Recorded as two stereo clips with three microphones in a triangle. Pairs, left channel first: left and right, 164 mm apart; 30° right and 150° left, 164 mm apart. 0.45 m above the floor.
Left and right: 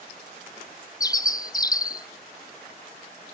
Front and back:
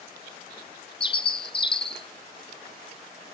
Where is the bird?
25° left, 0.6 m.